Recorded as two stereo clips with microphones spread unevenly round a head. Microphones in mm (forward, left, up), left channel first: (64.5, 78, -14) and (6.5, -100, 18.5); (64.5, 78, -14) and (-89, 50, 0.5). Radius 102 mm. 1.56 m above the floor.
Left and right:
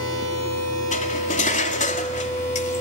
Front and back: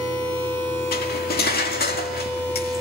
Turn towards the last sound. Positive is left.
turn(degrees=20)